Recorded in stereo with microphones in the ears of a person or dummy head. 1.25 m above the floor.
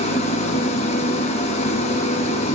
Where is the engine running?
35° left (ahead or behind), 0.9 m.